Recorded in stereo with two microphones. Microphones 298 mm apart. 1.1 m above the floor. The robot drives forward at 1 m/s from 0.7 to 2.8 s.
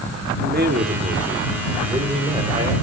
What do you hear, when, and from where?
0.4 s a man speaking: 30° right (ahead or behind), 2 m; by 2.7 s 15° right (ahead or behind), 4 m